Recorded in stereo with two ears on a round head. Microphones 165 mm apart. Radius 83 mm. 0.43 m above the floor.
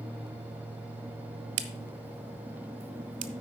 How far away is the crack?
About 0.9 m.